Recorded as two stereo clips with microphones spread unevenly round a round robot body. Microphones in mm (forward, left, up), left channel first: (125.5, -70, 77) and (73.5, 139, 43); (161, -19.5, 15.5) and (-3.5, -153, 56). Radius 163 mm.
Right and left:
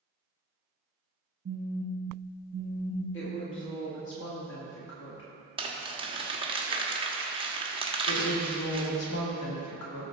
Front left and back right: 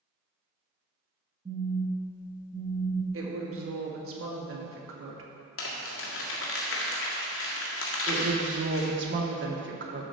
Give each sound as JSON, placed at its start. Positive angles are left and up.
{"t": 1.4, "sound": "a phone buzzing", "azimuth_deg": 140, "distance_m": 0.7}
{"t": 3.1, "sound": "a woman speaking", "azimuth_deg": -120, "distance_m": 1.9}
{"t": 5.6, "sound": "crumpling", "azimuth_deg": 40, "distance_m": 1.7}
{"t": 8.1, "sound": "a woman speaking", "azimuth_deg": -105, "distance_m": 1.7}